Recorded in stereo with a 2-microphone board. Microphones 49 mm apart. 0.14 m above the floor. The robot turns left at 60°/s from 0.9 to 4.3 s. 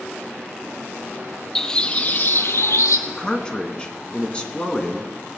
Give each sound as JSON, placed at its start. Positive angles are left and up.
{"t": 1.6, "sound": "a bird", "azimuth_deg": 175, "distance_m": 1.0}
{"t": 3.1, "sound": "a man speaking", "side_deg": 15, "distance_m": 1.6}